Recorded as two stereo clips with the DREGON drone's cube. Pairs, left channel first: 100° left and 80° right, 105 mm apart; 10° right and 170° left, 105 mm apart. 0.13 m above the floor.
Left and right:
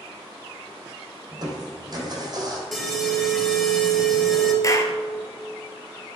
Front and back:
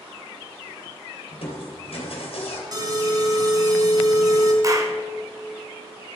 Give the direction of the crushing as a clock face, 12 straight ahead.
1 o'clock.